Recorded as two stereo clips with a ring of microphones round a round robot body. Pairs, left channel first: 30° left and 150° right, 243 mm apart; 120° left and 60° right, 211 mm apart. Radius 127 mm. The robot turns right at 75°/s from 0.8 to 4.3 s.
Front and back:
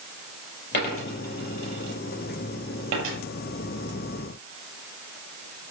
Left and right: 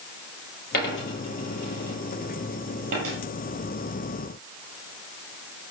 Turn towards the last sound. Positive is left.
turn(degrees=-20)